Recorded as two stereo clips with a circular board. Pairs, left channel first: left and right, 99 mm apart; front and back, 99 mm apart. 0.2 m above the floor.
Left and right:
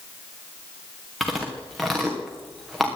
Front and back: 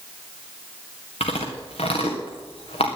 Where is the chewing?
Straight ahead, 4 m.